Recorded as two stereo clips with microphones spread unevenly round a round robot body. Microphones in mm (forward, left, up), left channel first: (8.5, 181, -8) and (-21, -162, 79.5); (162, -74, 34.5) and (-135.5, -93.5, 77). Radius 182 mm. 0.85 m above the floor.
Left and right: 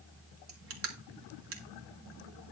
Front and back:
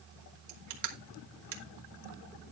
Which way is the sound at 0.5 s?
150° right.